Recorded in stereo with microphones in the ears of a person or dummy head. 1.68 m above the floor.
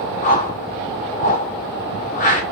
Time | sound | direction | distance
0.2 | a whoosh | 40° left (ahead or behind) | 2.0 m